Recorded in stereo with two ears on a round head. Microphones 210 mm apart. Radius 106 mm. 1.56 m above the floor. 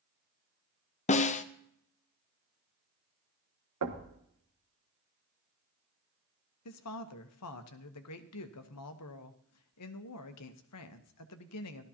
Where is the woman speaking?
80° left, 1.0 m.